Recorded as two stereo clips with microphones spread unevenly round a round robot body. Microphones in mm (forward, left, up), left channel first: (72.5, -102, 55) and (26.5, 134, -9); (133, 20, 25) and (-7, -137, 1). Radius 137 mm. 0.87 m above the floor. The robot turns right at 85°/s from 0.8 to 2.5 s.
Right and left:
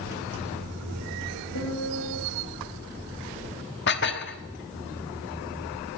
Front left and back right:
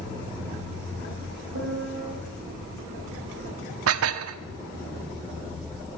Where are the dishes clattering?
135° right, 1.1 m.